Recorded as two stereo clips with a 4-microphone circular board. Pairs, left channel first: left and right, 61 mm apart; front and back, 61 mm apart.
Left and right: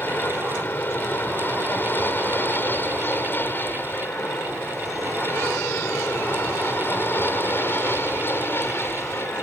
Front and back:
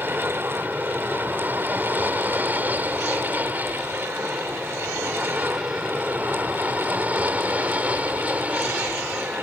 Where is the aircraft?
135° left; by 9.4 s 120° left.